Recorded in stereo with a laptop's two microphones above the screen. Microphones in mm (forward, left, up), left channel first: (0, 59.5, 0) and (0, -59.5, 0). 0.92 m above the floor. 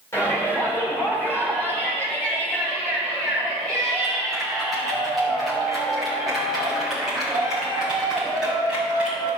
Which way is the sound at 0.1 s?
20° left (ahead or behind).